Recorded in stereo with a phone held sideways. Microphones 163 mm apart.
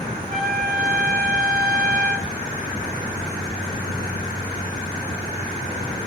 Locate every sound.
0.3 s a trumpet: 65° right (ahead or behind), 1.6 m